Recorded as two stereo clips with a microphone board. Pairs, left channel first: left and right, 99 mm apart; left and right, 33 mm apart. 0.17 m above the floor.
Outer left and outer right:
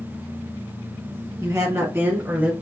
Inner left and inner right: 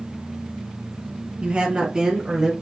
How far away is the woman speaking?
About 1.4 m.